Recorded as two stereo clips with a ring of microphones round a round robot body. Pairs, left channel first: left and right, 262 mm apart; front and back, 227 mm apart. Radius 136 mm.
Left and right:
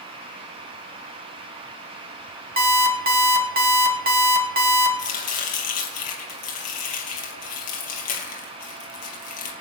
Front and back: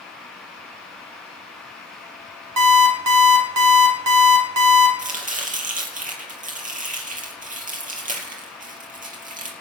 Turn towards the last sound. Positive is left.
turn(degrees=125)